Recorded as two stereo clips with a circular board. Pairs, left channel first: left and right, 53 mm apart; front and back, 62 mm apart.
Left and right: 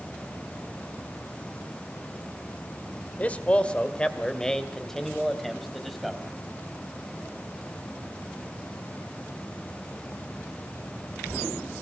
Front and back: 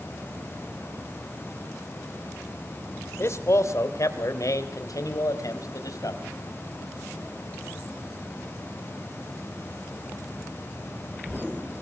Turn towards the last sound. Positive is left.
turn(degrees=0)